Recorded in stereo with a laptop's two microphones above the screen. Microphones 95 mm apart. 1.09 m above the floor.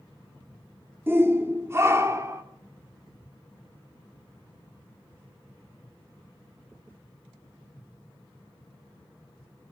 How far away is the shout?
About 3 m.